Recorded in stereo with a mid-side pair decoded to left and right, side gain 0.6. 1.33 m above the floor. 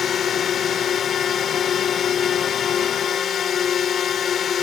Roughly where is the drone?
Ahead left.